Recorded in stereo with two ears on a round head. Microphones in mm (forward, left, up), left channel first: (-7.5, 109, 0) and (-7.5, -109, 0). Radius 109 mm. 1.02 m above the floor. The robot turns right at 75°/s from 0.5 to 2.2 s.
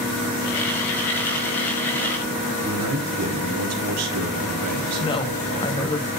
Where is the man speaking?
75° right (ahead or behind), 2.5 m.